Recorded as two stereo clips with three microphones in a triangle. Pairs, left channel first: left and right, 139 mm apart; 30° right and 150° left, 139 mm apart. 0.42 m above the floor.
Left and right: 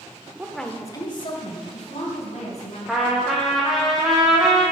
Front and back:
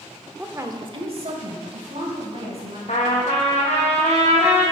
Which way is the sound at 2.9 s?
Straight ahead.